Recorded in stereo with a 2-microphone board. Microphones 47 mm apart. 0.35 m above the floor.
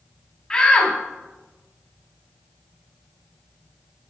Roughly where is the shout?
Centre.